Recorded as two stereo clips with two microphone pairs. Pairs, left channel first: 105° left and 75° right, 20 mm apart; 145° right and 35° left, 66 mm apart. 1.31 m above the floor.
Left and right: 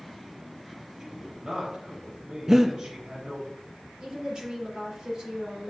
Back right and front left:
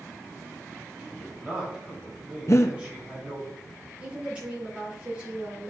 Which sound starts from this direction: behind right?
Breathing, at 2.5 s.